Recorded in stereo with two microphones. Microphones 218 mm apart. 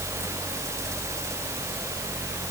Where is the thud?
I don't hear a thud.